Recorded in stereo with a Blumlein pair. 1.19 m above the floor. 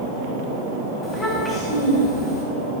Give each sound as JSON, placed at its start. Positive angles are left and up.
{"t": 1.0, "sound": "a child speaking", "azimuth_deg": 15, "distance_m": 3.5}